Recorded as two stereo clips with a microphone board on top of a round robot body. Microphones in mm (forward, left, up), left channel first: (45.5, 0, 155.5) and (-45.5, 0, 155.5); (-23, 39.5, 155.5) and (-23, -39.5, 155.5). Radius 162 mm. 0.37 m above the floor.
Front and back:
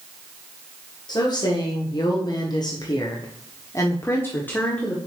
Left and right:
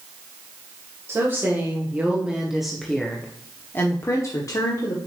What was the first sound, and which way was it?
A woman speaking, 35° right.